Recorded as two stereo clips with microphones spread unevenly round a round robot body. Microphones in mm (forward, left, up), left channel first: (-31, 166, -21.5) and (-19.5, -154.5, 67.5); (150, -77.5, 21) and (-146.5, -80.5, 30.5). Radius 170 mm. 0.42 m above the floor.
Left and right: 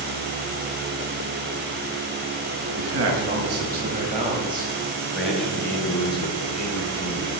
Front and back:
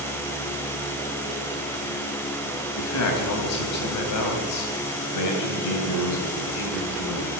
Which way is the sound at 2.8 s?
35° right.